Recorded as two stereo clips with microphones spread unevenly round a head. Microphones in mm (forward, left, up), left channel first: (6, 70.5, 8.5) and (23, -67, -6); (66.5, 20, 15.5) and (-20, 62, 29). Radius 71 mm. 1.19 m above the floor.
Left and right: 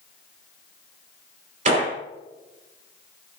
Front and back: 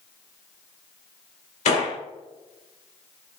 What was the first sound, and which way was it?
A gunshot, 45° right.